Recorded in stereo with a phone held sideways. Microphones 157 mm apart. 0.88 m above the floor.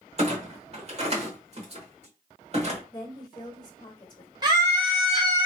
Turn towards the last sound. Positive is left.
turn(degrees=-25)  # may be behind; listen again after turning